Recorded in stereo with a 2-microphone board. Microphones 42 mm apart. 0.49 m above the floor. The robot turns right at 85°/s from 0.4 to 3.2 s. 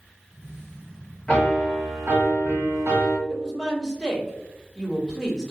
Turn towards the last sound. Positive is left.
turn(degrees=-15)  # may be behind; listen again after turning